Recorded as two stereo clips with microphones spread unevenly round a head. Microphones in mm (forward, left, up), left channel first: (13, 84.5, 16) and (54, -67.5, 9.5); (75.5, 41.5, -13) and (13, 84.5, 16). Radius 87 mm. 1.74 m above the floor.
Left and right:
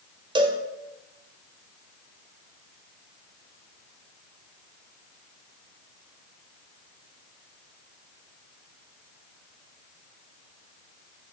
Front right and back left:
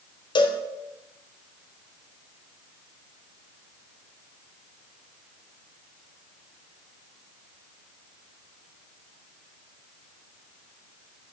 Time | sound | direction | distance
0.3 | a cowbell | 15° right | 1.4 m